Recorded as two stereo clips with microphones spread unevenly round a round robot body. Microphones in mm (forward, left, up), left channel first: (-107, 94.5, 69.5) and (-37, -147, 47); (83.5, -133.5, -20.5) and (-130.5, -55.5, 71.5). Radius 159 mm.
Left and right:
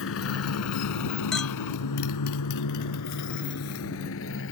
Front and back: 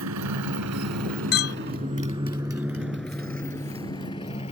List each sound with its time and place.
0.0 s a motorcycle: 140° left; by 4.5 s 55° left
1.3 s a clink: 15° left